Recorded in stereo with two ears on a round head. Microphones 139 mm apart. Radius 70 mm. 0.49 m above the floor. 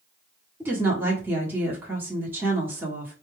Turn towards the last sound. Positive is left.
turn(degrees=-15)  # may be behind; listen again after turning